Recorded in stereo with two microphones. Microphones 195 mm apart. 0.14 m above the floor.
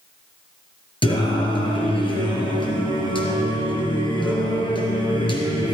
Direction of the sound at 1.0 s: 25° left (ahead or behind).